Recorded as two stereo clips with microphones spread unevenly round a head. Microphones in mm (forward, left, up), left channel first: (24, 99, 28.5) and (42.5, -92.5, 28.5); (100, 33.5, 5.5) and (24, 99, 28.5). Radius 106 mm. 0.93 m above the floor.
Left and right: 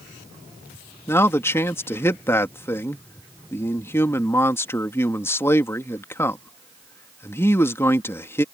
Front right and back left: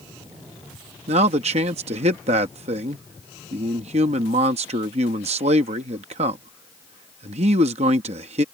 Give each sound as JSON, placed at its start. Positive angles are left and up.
{"t": 1.1, "sound": "a man speaking", "azimuth_deg": 175}